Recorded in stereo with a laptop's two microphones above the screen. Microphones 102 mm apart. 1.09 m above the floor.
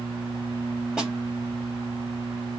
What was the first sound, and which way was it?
A snare drum, 10° right (ahead or behind).